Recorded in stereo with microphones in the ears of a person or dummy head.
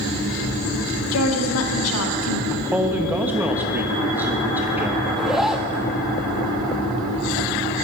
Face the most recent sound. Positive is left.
turn(degrees=-5)  # may be behind; listen again after turning